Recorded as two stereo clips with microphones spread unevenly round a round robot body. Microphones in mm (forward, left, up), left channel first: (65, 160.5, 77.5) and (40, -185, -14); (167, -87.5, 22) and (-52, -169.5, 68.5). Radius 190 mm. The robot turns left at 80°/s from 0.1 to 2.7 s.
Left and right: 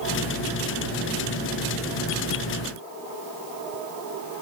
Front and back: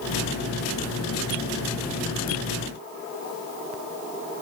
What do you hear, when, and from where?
Only background noise.